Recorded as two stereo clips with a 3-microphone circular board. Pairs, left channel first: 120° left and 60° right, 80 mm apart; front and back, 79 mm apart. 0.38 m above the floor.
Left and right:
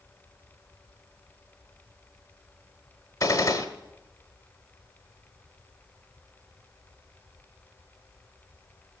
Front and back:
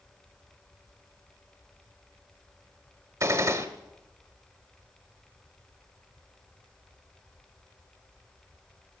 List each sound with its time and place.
3.2 s a gunshot: 150° left, 1.4 m